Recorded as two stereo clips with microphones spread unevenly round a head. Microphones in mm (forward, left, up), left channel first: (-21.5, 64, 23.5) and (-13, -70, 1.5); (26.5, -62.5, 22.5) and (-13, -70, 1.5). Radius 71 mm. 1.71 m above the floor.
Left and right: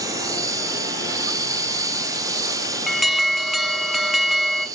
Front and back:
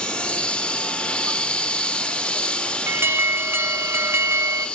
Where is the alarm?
175° right, 1.2 m.